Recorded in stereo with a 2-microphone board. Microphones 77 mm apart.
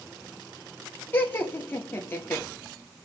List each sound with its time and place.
1.1 s laughter: 25° left (ahead or behind), 2.5 m